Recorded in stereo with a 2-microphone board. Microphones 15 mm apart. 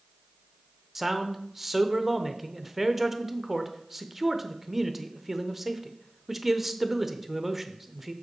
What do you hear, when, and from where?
0.9 s a man speaking: 15° right (ahead or behind), 0.8 m